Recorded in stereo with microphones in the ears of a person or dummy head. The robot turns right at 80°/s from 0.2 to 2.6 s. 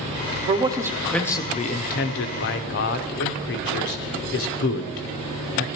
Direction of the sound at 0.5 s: 40° right (ahead or behind).